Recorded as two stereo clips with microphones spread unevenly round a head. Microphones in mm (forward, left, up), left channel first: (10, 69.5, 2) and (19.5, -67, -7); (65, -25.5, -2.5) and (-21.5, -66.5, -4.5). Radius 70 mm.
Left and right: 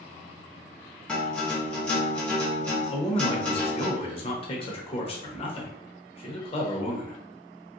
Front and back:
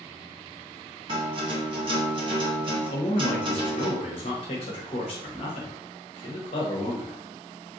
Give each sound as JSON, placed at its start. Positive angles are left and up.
{"t": 1.1, "sound": "a guitar", "azimuth_deg": 180, "distance_m": 0.9}
{"t": 2.9, "sound": "a man speaking", "azimuth_deg": 45, "distance_m": 0.9}